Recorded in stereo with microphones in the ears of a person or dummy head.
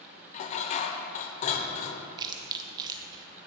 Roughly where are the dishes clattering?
Left.